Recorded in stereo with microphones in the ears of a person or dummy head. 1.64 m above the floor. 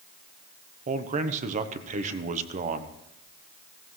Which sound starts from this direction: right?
A man speaking, at 0.9 s.